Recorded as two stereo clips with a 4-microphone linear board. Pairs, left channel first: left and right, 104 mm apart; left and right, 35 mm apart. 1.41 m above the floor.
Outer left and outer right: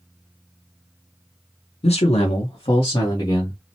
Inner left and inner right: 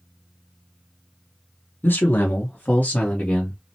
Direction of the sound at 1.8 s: 80° left.